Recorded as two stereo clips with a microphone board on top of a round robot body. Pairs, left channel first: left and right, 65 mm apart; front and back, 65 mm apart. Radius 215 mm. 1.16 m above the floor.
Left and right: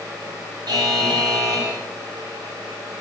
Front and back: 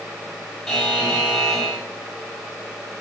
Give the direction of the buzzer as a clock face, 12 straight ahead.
3 o'clock.